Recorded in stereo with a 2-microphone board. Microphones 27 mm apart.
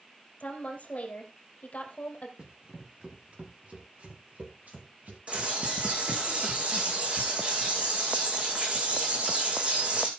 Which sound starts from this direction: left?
A woman speaking, at 0.4 s.